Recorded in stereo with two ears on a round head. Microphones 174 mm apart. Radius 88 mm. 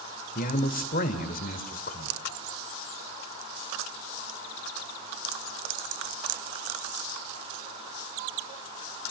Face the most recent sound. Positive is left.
turn(degrees=45)  # may be behind; listen again after turning